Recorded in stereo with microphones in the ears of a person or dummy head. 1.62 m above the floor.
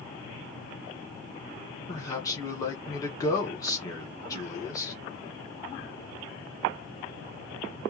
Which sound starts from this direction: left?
A man speaking, at 1.9 s.